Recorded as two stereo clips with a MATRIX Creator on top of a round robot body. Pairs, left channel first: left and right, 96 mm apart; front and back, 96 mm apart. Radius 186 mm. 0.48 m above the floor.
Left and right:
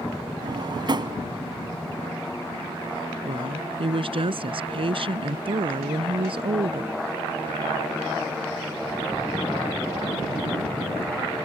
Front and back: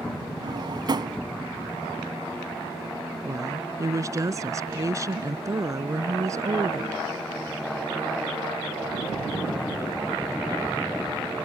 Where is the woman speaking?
125° right.